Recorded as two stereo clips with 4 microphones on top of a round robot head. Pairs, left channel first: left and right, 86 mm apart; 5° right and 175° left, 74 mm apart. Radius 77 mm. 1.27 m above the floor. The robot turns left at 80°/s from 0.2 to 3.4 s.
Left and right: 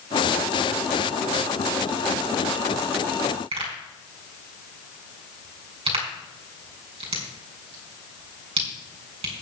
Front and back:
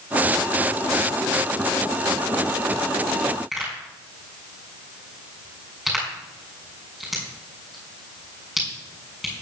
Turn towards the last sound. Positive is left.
turn(degrees=-100)